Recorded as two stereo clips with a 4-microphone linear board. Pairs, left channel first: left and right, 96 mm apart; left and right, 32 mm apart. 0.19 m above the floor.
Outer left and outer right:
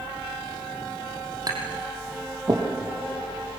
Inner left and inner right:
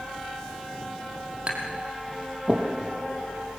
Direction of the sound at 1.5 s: 40° right (ahead or behind).